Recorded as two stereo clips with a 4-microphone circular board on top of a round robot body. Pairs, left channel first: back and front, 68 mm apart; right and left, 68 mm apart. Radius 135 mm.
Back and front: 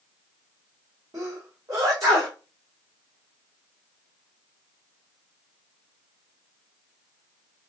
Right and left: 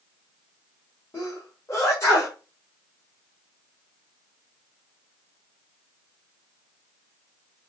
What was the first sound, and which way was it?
A sneeze, 40° right.